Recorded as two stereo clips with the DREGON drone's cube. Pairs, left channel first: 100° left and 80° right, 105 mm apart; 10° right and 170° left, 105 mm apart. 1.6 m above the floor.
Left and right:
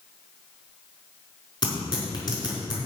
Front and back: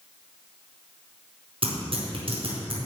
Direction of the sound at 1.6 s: 145° left.